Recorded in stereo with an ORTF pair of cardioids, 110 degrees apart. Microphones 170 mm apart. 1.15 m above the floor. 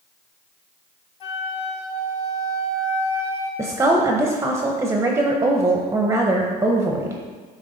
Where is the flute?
35° left, 1.1 m.